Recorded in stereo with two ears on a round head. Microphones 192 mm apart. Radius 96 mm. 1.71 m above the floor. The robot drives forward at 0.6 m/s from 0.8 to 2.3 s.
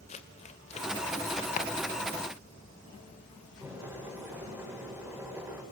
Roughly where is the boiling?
Centre.